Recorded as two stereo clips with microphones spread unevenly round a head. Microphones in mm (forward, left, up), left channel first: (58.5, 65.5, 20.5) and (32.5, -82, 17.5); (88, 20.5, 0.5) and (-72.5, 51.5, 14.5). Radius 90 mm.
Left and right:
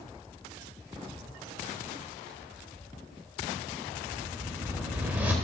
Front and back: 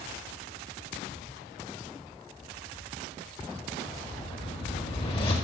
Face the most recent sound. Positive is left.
turn(degrees=-35)